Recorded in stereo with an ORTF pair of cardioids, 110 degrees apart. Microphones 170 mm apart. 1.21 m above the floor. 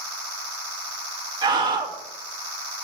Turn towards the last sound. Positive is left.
turn(degrees=-25)